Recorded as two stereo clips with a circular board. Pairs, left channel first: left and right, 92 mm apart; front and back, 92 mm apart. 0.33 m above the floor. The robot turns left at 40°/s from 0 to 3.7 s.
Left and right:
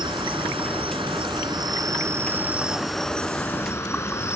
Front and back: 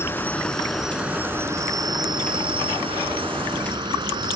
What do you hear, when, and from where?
0.0 s an insect: 60° right; by 4.4 s 150° left